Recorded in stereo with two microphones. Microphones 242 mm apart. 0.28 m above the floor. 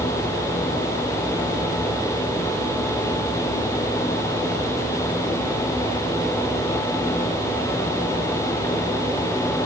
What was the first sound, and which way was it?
Only background noise.